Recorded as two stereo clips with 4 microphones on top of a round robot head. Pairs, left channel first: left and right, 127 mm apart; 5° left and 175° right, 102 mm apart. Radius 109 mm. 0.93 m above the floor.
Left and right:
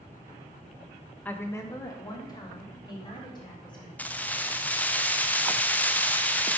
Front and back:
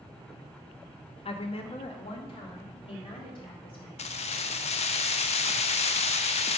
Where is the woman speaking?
10° left, 0.9 m; by 3.9 s 35° left, 3.5 m.